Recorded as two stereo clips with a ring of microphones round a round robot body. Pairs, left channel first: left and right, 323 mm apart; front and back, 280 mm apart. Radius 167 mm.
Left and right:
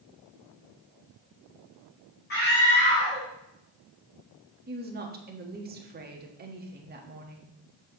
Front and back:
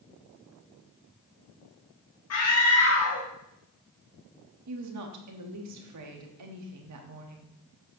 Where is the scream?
30° left, 1.5 m.